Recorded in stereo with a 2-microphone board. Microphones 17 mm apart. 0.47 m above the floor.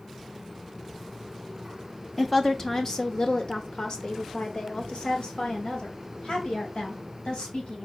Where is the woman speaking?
10° left (ahead or behind), 0.9 m; by 7.9 s 55° left (ahead or behind), 3.5 m.